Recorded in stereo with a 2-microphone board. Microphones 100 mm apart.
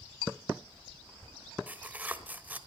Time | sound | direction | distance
1.7 | tearing paper | 15° right (ahead or behind) | 1.2 m